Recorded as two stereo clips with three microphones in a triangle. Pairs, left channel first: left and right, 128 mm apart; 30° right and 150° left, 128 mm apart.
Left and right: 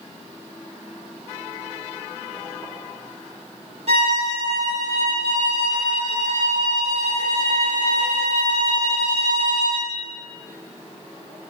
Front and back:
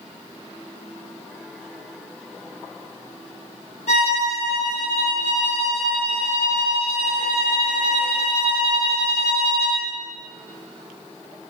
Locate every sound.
3.9 s a violin: 55° right, 1.4 m